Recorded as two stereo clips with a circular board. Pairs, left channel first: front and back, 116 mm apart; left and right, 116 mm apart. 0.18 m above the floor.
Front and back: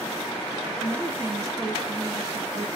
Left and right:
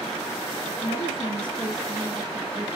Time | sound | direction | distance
0.8 | a woman speaking | 95° left | 2 m